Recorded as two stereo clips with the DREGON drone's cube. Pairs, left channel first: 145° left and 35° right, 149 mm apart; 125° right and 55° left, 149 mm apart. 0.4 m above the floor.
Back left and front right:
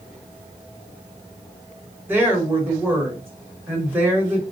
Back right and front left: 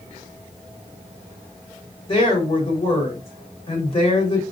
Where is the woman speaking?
105° right, 1.2 m.